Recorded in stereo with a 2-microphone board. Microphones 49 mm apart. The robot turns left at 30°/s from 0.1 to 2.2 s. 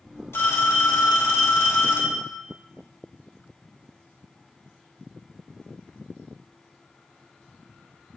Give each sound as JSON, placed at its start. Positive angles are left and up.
{"t": 0.3, "sound": "a phone ringing", "azimuth_deg": 115, "distance_m": 2.5}